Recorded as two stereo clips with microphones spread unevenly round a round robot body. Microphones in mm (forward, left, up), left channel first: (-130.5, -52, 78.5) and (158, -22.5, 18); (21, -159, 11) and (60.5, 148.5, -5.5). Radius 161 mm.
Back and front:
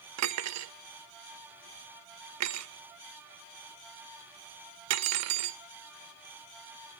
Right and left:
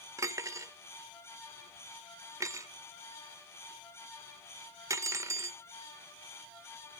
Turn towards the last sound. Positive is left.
turn(degrees=5)